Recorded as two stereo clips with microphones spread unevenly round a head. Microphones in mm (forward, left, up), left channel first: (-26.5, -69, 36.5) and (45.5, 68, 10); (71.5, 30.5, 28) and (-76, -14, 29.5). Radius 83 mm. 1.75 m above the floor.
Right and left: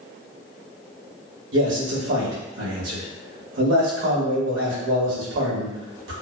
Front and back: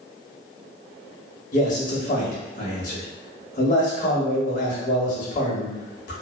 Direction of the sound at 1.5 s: 55° left.